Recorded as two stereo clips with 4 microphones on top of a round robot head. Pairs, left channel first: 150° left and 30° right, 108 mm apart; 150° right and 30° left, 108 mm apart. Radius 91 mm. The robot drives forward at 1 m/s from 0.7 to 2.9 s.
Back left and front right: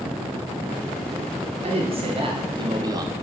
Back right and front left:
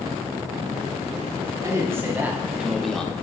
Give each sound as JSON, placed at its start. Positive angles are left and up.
{"t": 1.6, "sound": "a man speaking", "azimuth_deg": -30, "distance_m": 2.0}